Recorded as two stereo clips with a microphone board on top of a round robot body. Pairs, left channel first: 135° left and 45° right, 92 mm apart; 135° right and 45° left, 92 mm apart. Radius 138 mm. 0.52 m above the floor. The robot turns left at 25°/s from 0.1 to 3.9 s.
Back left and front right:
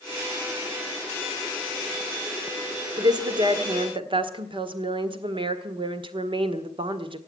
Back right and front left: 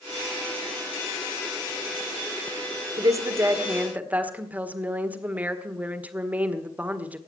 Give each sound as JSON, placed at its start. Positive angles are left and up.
{"t": 3.0, "sound": "a woman speaking", "azimuth_deg": -5, "distance_m": 1.7}